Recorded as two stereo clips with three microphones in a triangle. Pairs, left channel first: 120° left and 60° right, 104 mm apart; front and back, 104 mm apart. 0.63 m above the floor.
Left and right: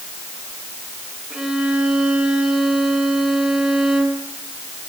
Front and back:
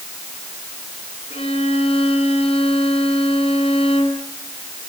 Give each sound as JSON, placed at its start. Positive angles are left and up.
{"t": 1.3, "sound": "a violin", "azimuth_deg": 20, "distance_m": 6.5}